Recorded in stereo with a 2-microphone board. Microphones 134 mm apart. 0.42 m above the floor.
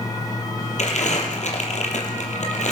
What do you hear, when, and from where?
0.8 s crumpling: 65° left (ahead or behind), 5 m